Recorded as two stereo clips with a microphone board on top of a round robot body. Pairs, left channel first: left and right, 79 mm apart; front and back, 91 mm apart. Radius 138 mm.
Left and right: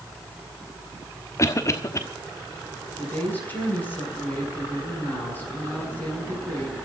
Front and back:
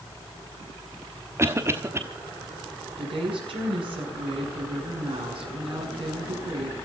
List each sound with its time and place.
1.4 s a cough: 125° left, 1.3 m
3.0 s a woman speaking: 160° left, 7 m